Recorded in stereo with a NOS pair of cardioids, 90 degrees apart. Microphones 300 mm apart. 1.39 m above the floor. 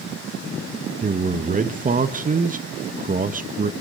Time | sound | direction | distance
1.0 | a man speaking | 25° right | 1.4 m